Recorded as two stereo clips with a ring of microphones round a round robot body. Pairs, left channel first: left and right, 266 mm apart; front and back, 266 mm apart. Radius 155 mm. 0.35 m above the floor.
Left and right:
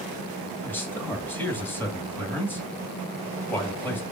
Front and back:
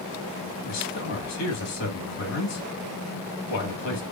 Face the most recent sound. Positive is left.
turn(degrees=10)